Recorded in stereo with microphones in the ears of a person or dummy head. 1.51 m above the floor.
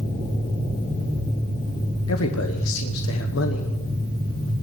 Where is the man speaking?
80° left, 1.3 m.